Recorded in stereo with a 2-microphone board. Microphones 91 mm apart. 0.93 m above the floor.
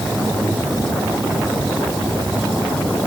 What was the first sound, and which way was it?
Only background noise.